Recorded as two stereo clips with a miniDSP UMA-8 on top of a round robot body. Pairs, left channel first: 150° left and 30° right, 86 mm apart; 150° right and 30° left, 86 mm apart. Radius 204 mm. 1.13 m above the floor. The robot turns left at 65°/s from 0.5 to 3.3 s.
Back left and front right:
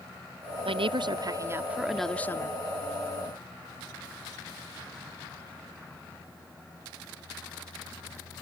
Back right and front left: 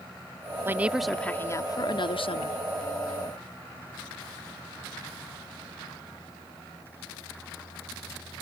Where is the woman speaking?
35° right; by 2.6 s 160° right.